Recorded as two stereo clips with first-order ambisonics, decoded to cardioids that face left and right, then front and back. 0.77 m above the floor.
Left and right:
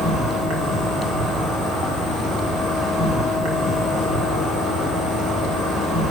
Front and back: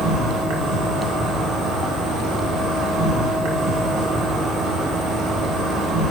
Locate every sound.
0.0 s an insect: 145° right, 1.6 m